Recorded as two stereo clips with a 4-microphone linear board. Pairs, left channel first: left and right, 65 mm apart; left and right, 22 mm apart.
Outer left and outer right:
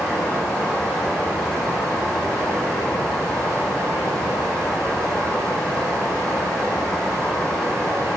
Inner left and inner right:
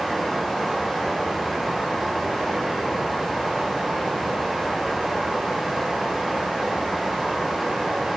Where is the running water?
15° left (ahead or behind), 4 m.